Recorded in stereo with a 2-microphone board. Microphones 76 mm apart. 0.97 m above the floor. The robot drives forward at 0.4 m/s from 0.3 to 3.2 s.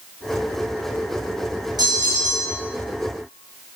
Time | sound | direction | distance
1.8 | a bell | 60° right (ahead or behind) | 2 m